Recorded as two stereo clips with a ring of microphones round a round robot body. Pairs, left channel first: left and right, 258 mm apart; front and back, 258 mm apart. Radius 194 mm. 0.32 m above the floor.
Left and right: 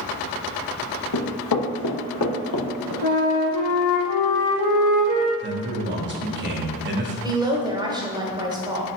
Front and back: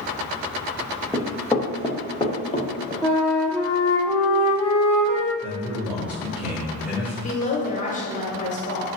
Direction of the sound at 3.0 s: 90° left.